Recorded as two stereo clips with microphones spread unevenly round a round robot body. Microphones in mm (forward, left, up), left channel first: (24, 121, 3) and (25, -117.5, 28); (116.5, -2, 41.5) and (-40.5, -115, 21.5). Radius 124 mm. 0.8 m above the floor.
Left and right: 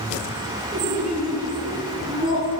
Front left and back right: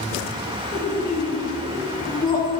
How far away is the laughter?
About 8 m.